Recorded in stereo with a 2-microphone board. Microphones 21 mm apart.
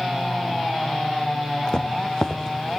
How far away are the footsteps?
About 1.8 m.